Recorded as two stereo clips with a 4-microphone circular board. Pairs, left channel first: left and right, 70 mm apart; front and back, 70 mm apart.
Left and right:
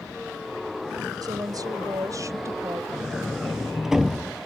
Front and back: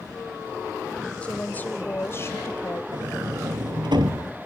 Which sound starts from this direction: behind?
A sliding door, at 2.9 s.